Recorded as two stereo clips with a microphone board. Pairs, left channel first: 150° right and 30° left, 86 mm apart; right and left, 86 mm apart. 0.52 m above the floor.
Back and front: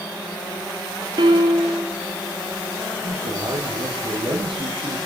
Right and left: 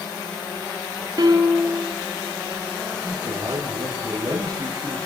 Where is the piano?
50° left, 3 m.